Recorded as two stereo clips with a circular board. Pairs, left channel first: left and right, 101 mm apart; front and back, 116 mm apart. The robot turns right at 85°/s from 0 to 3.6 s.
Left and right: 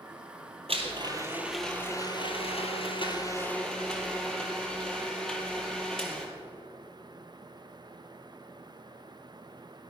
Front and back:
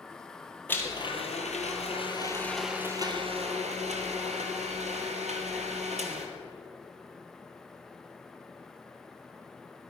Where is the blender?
75° right, 2.0 m; by 6.3 s 175° left, 2.0 m.